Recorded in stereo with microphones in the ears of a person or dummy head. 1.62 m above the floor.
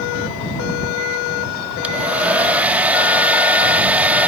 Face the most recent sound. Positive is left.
turn(degrees=-5)  # may be behind; listen again after turning